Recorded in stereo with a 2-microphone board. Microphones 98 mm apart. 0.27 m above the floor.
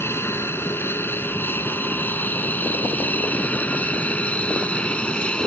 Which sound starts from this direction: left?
An aircraft, at 0.0 s.